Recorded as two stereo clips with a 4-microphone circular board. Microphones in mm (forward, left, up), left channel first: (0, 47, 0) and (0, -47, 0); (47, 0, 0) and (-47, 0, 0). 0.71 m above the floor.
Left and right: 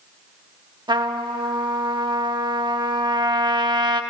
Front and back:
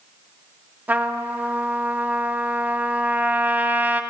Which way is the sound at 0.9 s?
110° right.